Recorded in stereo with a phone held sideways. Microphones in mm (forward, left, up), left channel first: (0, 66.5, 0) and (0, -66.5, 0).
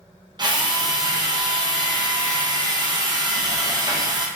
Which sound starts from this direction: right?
A drill, at 0.4 s.